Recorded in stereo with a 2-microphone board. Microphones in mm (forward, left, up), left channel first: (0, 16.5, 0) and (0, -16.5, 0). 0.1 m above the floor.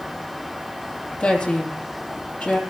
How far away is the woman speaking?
About 3 m.